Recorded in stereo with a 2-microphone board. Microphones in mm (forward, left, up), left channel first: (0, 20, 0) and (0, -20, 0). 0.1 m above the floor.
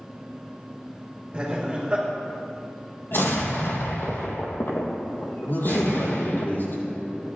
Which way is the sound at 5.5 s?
70° left (ahead or behind).